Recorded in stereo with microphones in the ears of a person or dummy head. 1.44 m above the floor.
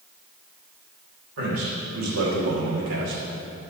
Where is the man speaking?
80° right, 3 m; by 3.2 s 60° right (ahead or behind), 2 m.